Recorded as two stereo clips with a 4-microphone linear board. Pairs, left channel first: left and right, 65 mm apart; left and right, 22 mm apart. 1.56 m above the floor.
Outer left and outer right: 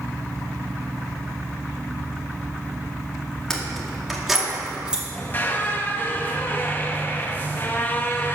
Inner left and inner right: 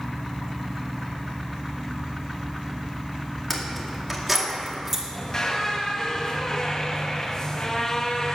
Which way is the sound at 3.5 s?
10° left (ahead or behind).